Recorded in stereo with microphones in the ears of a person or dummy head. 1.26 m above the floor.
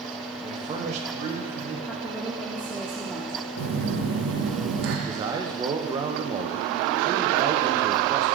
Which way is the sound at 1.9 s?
5° left (ahead or behind).